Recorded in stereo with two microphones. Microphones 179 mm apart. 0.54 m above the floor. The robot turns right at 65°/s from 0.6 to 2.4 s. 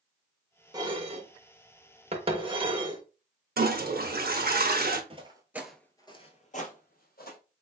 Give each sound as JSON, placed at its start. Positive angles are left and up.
{"t": 0.7, "sound": "dishes clattering", "side_deg": -20, "distance_m": 0.7}
{"t": 3.6, "sound": "a toilet flushing", "side_deg": -65, "distance_m": 0.6}
{"t": 5.1, "sound": "footsteps", "side_deg": -35, "distance_m": 0.7}